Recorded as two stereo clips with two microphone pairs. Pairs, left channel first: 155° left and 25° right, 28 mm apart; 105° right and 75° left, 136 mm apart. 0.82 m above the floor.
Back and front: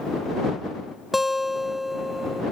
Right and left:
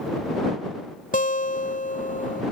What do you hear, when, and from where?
1.1 s a guitar: 110° right